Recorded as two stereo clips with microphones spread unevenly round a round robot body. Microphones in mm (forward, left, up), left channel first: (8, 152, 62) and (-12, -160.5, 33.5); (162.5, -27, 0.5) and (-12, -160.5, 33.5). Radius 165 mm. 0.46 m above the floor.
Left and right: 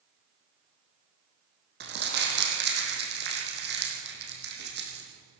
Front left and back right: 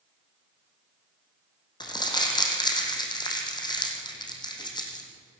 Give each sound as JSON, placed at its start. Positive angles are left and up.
{"t": 1.8, "sound": "crumpling", "azimuth_deg": -35, "distance_m": 4.5}